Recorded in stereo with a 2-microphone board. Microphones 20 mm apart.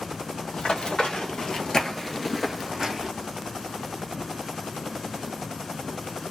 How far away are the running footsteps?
About 1.5 m.